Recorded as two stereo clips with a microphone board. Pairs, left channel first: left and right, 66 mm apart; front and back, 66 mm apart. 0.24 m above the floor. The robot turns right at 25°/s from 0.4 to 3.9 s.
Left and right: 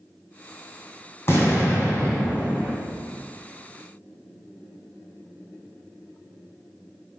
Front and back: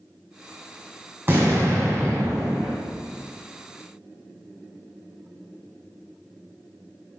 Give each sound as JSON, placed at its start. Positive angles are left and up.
{"t": 1.3, "sound": "an explosion", "azimuth_deg": 130, "distance_m": 2.5}